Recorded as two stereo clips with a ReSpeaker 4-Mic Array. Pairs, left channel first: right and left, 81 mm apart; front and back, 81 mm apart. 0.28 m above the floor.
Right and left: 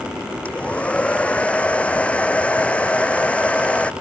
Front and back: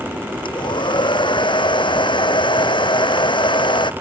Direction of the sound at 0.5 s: 15° right.